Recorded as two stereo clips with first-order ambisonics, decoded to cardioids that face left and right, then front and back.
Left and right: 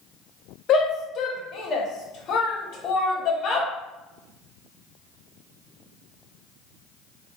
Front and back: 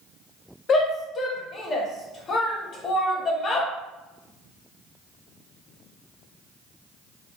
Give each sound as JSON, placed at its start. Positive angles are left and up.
{"t": 0.7, "sound": "a shout", "azimuth_deg": 55, "distance_m": 0.6}